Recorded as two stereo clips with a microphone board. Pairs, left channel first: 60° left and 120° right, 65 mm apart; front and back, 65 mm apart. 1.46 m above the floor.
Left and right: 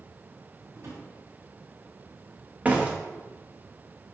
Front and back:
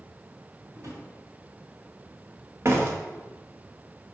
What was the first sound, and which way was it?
A drawer, 150° right.